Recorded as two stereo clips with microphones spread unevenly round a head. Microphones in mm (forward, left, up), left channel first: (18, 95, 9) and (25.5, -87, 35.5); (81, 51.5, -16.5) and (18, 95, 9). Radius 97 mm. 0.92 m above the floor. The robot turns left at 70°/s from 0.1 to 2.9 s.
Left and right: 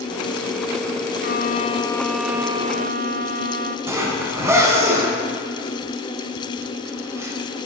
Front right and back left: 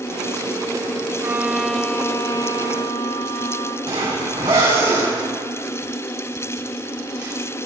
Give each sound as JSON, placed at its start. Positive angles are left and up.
{"t": 1.2, "sound": "a violin", "azimuth_deg": 75, "distance_m": 0.8}
{"t": 3.9, "sound": "a zipper", "azimuth_deg": -165, "distance_m": 3.5}